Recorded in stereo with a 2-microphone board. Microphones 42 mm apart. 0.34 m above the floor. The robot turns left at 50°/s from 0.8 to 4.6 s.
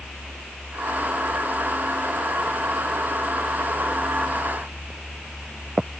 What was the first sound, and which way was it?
Only background noise.